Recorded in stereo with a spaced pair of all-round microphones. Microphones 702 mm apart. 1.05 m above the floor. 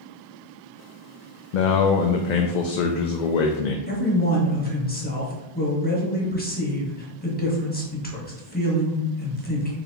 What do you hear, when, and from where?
1.5 s a man speaking: 85° left, 0.6 m
3.9 s a man speaking: 15° left (ahead or behind), 1.2 m